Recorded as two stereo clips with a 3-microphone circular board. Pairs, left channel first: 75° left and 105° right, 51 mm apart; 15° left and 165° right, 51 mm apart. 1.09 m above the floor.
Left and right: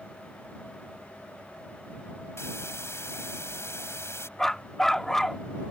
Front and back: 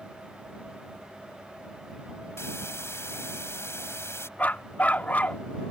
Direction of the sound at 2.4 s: 45° left.